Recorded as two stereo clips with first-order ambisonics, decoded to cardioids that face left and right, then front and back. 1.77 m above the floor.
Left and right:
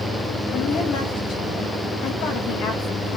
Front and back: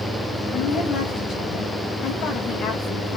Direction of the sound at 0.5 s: 55° left.